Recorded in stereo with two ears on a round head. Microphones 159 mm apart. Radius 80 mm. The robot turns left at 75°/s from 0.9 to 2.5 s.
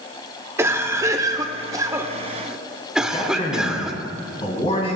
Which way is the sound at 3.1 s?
35° left (ahead or behind).